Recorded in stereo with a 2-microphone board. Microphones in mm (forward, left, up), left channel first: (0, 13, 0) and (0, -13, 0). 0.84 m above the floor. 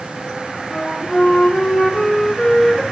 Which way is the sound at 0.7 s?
10° left (ahead or behind).